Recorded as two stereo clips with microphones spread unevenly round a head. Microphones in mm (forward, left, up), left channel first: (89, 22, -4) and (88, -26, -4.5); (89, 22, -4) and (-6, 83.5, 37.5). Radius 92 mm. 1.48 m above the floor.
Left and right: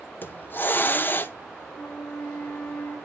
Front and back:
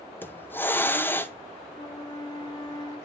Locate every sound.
0.2 s a hiss: 40° left, 1.1 m
1.8 s a flute: 30° left, 3 m